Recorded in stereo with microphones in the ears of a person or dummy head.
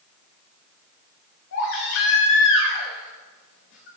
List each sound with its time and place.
1.5 s a baby crying: 75° left (ahead or behind), 4.5 m